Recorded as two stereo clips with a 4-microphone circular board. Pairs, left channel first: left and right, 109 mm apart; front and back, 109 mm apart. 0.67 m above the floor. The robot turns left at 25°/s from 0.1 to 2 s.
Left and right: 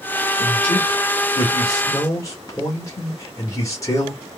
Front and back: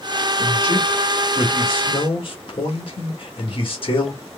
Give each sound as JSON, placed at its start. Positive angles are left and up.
{"t": 0.4, "sound": "a man speaking", "azimuth_deg": 70, "distance_m": 1.3}